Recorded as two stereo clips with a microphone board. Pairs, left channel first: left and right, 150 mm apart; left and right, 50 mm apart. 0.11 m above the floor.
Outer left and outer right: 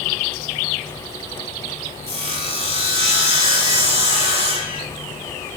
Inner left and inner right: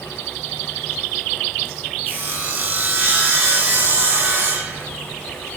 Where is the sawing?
40° right (ahead or behind), 0.6 m.